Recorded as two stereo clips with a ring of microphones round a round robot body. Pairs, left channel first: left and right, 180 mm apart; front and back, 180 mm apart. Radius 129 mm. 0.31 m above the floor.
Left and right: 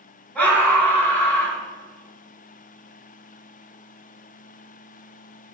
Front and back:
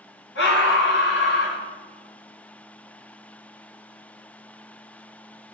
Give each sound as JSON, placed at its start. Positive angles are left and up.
{"t": 0.3, "sound": "a scream", "azimuth_deg": 10, "distance_m": 3.5}